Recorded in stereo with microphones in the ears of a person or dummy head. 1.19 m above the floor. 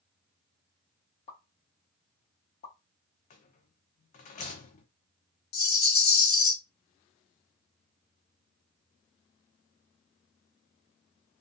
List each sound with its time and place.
1.3 s a pop: 25° left (ahead or behind), 0.7 m
3.3 s a rattle: 50° left (ahead or behind), 0.6 m
5.5 s a rattle: 60° left (ahead or behind), 0.7 m